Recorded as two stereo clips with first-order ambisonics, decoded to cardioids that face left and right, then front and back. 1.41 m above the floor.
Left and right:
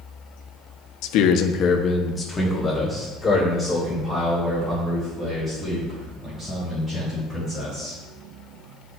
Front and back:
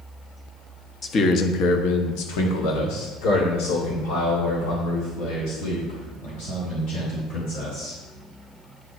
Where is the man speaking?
70° left, 0.7 m; by 8.0 s 15° right, 5.5 m.